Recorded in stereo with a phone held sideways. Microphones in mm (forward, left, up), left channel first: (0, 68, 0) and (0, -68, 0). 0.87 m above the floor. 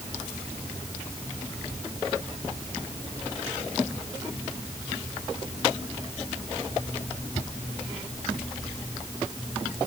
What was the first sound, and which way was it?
Only background noise.